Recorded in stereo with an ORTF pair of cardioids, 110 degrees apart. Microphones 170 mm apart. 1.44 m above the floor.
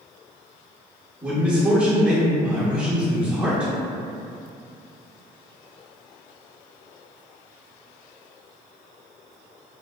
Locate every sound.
1.2 s a man speaking: 5° right, 1.0 m